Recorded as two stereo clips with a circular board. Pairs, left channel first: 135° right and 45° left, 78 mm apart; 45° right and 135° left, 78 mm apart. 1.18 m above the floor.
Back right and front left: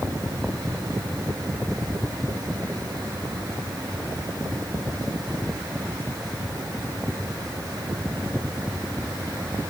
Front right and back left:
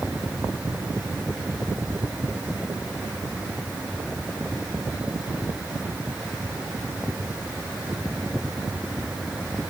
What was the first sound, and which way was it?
Only background noise.